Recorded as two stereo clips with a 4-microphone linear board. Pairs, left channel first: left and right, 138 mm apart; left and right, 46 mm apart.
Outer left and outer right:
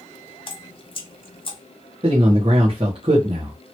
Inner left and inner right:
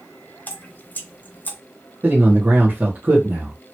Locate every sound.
0.5 s dripping: 40° left (ahead or behind), 0.7 m
2.0 s a man speaking: 40° right (ahead or behind), 1.2 m